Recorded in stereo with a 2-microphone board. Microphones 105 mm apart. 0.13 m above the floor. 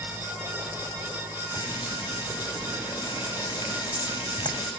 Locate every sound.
1.5 s frying: 45° left (ahead or behind), 5.5 m